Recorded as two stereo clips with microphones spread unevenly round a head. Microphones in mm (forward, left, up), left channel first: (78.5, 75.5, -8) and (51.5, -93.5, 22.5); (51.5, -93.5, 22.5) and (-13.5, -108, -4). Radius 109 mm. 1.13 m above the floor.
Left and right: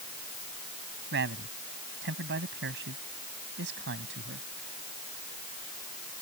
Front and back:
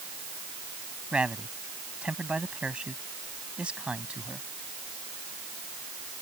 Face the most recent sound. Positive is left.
turn(degrees=-90)